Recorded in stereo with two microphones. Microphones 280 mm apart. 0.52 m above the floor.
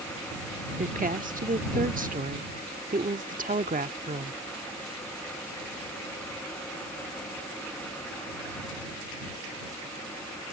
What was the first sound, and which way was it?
A woman speaking, 30° right (ahead or behind).